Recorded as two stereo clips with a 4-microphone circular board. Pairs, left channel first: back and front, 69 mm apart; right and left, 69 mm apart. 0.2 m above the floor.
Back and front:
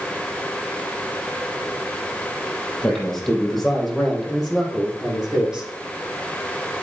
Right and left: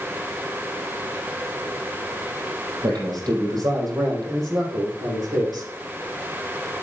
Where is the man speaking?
95° left, 5 m; by 5.7 s 80° left, 6 m.